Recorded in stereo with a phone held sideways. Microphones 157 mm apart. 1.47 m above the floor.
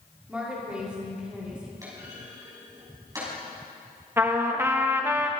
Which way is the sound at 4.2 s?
15° right (ahead or behind).